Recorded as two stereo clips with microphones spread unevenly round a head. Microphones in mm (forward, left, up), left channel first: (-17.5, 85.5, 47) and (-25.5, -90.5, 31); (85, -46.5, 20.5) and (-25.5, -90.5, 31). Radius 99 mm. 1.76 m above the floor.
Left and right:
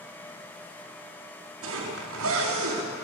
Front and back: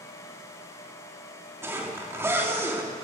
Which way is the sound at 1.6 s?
90° right.